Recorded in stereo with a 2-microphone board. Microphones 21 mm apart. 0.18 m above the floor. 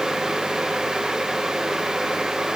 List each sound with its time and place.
Only background noise.